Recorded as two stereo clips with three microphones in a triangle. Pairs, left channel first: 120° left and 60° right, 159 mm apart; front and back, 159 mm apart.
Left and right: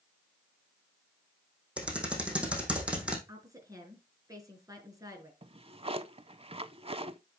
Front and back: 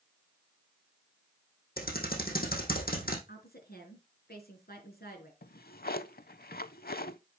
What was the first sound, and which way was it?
Typing on a keyboard, 25° left.